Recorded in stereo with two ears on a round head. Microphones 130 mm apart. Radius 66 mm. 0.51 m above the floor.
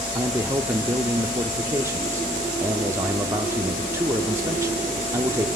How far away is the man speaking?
About 0.7 m.